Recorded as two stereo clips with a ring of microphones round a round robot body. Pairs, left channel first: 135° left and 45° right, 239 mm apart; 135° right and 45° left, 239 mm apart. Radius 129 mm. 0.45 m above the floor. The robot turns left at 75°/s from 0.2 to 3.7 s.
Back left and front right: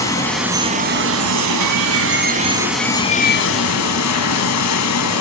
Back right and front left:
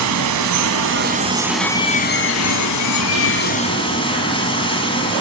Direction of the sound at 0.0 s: 60° left.